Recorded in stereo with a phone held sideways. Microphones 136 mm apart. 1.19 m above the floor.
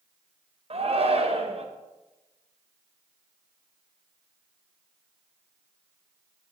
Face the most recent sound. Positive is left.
turn(degrees=-45)  # may be behind; listen again after turning